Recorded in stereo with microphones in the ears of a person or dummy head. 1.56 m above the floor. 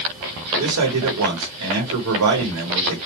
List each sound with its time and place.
0.6 s a man speaking: 80° right, 1.1 m